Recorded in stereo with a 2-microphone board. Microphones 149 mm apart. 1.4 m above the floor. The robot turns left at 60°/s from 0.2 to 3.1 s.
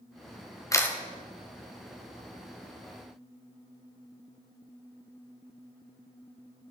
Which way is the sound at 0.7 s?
20° left (ahead or behind).